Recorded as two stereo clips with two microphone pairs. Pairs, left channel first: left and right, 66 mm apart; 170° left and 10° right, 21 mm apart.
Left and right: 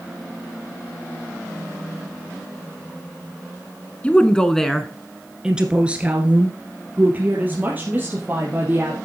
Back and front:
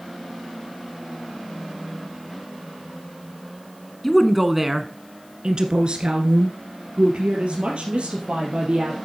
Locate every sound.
4.0 s a woman speaking: 105° left, 1.1 m; by 9.0 s 25° right, 4 m